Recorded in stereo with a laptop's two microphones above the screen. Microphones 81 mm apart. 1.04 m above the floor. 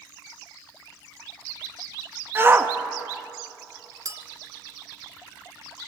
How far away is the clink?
About 1.1 m.